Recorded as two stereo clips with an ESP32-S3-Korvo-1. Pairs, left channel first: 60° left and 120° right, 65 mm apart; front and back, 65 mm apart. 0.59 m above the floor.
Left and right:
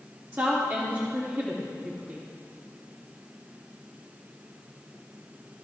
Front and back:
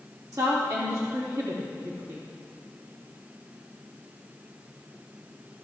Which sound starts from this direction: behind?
A woman speaking, at 0.3 s.